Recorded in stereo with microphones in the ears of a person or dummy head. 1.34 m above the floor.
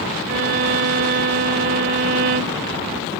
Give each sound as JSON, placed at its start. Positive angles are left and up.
{"t": 0.3, "sound": "a violin", "side_deg": -50}